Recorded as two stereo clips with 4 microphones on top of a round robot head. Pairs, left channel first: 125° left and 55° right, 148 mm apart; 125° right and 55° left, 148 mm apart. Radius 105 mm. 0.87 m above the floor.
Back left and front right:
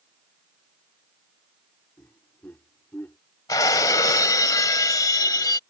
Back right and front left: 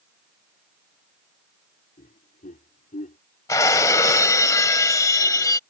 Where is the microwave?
I don't hear a microwave.